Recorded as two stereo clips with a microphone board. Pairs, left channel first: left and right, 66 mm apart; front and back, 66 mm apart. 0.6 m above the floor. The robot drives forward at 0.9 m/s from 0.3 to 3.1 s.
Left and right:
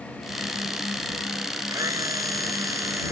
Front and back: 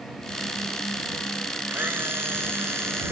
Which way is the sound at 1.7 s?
120° right.